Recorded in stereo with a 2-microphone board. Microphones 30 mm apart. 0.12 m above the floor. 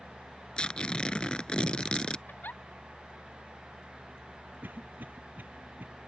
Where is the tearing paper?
30° left (ahead or behind).